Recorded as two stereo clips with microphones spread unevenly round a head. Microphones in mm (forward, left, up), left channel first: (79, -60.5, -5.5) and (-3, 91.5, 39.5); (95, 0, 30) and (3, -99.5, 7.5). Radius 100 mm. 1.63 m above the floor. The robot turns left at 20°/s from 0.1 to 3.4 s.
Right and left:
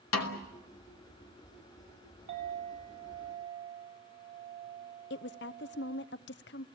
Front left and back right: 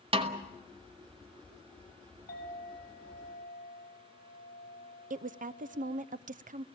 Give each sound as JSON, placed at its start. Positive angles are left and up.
{"t": 0.1, "sound": "a snare drum", "azimuth_deg": -85, "distance_m": 2.0}
{"t": 2.3, "sound": "a clink", "azimuth_deg": 100, "distance_m": 7.0}
{"t": 5.1, "sound": "a woman speaking", "azimuth_deg": -105, "distance_m": 0.7}